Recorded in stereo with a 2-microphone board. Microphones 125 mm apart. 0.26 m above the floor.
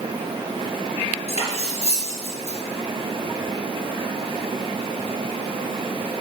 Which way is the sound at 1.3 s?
55° left (ahead or behind).